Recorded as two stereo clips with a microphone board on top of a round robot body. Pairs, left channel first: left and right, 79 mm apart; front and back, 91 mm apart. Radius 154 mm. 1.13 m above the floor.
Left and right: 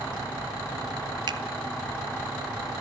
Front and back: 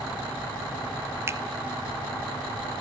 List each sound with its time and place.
1.3 s a finger snap: 120° right, 1.4 m